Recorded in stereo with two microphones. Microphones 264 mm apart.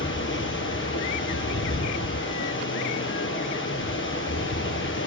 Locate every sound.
0.0 s running water: 50° left (ahead or behind), 1.2 m